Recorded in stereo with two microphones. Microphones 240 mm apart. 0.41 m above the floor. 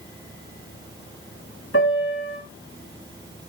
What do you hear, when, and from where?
1.7 s a piano: 65° left (ahead or behind), 3 m